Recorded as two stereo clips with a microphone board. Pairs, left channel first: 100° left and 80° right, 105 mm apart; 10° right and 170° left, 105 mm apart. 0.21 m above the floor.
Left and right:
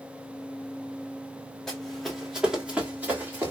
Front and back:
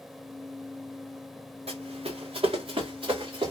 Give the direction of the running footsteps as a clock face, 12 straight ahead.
6 o'clock.